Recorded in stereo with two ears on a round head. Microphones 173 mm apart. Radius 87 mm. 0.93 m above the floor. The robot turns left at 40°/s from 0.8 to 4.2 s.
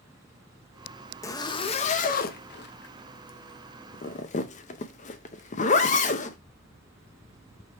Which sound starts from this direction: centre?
A zipper, at 1.2 s.